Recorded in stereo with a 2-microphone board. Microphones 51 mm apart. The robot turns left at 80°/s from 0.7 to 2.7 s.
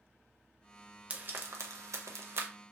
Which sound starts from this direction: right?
Frying, at 1.1 s.